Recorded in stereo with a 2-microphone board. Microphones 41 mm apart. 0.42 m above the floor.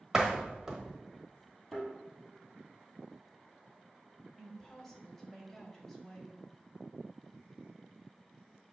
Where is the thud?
Centre (ahead or behind), 3 m.